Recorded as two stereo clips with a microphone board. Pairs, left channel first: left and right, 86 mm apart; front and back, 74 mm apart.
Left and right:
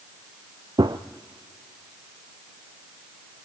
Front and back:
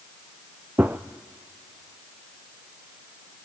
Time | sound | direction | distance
0.8 | a gunshot | 120° right | 0.9 m